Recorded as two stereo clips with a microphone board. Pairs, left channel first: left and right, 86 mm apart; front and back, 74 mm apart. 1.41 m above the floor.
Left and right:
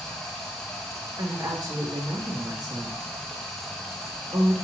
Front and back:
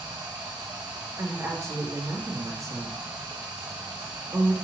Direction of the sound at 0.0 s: 175° left.